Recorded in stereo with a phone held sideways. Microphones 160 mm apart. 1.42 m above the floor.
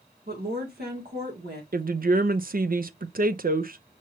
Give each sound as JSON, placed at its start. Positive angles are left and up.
{"t": 0.3, "sound": "a woman speaking", "side_deg": -65, "distance_m": 1.9}
{"t": 1.7, "sound": "a woman speaking", "side_deg": -60, "distance_m": 0.6}